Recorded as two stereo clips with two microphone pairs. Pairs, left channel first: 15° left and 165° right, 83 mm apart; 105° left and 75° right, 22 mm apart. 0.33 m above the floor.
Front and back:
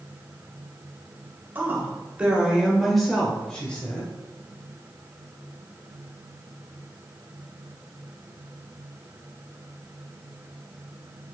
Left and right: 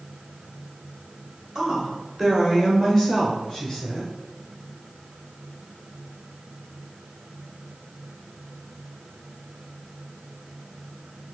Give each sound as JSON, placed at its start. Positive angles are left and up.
{"t": 1.6, "sound": "a woman speaking", "azimuth_deg": -125, "distance_m": 1.3}